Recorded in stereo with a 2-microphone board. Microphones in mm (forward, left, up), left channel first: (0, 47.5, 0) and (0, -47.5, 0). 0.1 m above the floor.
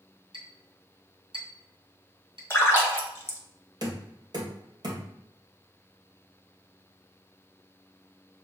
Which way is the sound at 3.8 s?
45° right (ahead or behind).